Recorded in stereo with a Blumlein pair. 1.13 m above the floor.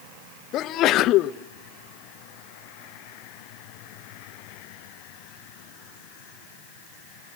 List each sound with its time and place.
0.5 s a sneeze: 35° left, 0.8 m